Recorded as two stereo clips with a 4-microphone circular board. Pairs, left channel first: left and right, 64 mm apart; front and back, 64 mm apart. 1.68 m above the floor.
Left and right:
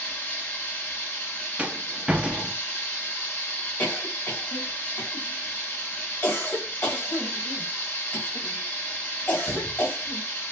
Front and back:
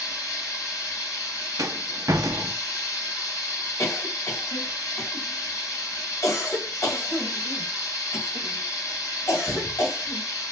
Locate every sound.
0.0 s running water: 30° left, 2.5 m
1.6 s a rattle: 160° right, 0.5 m
3.8 s a cough: 35° left, 2.5 m